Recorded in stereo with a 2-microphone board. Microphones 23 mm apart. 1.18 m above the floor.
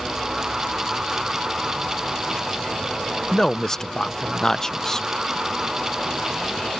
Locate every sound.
3.3 s a man speaking: 20° left (ahead or behind)